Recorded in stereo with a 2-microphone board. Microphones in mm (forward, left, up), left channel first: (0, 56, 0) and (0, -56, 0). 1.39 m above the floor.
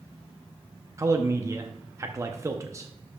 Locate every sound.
1.0 s a man speaking: 25° right (ahead or behind), 0.6 m